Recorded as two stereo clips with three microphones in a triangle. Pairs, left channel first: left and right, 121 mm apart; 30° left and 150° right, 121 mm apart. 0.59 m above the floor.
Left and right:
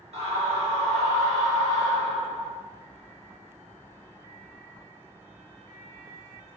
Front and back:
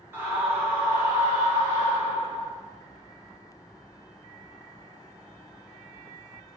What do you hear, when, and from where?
0.1 s a scream: 80° right, 1.8 m